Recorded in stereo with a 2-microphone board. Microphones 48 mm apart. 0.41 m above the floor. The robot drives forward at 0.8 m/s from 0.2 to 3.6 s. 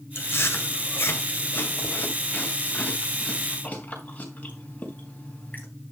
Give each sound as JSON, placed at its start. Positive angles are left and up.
{"t": 0.1, "sound": "chewing", "side_deg": 55, "distance_m": 2.0}